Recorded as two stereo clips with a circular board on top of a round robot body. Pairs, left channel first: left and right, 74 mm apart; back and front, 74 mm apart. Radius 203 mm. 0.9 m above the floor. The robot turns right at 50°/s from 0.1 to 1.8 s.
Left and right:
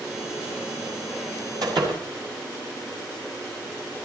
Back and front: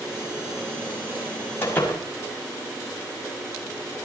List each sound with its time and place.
1.6 s a door slam: 120° right, 6 m; by 2.0 s 110° right, 6 m